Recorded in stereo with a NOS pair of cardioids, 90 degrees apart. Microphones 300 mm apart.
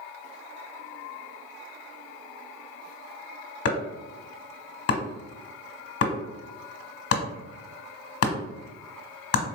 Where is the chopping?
50° left, 1.2 m.